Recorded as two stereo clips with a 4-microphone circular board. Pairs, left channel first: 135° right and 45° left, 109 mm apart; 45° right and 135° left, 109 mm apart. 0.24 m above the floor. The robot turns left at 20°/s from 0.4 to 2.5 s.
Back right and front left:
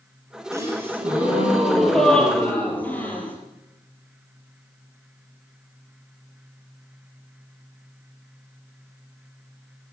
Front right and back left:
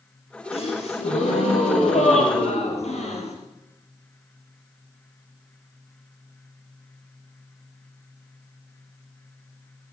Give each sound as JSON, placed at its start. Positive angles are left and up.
{"t": 0.5, "sound": "a gasp", "azimuth_deg": -20, "distance_m": 4.5}